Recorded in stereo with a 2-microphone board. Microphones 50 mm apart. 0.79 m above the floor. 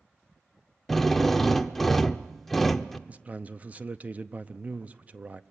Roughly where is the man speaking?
Right.